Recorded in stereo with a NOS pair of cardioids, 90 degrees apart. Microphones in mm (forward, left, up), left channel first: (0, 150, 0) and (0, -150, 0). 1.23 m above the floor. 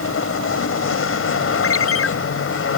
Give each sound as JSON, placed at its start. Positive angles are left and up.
{"t": 0.0, "sound": "a machine running", "azimuth_deg": 45}
{"t": 1.6, "sound": "a ringtone", "azimuth_deg": 50}